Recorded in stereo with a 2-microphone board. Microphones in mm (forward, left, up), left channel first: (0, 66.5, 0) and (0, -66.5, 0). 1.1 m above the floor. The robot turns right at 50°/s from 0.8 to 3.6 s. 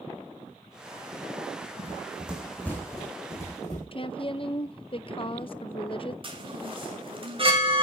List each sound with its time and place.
1.8 s running footsteps: 30° right (ahead or behind), 3 m; by 3.8 s 55° left (ahead or behind), 5 m
3.9 s a woman speaking: 40° left (ahead or behind), 0.7 m
6.2 s a chime: 40° right (ahead or behind), 2.5 m